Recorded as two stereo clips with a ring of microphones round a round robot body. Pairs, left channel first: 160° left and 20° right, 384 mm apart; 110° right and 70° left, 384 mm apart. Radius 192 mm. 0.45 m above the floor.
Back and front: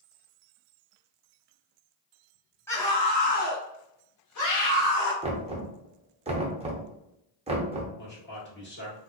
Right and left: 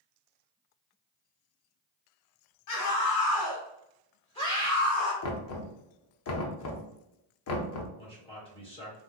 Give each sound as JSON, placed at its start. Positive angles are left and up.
{"t": 2.7, "sound": "a scream", "azimuth_deg": -120, "distance_m": 1.5}
{"t": 5.2, "sound": "knocking", "azimuth_deg": -90, "distance_m": 0.6}
{"t": 8.0, "sound": "a man speaking", "azimuth_deg": -175, "distance_m": 1.5}